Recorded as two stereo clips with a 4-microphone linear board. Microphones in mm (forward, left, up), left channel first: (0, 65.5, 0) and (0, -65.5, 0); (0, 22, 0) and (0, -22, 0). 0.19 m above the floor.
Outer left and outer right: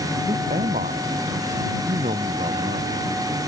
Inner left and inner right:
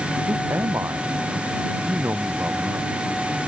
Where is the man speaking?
80° right.